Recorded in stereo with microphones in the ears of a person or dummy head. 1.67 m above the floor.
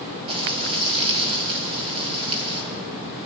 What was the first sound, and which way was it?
Frying, 30° right (ahead or behind).